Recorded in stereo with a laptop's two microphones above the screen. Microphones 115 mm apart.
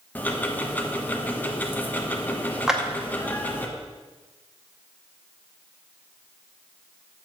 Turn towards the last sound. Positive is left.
turn(degrees=-5)  # may be behind; listen again after turning